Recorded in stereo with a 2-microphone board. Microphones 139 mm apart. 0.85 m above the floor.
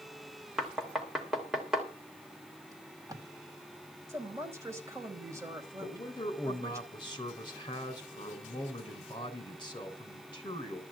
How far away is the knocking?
About 3 m.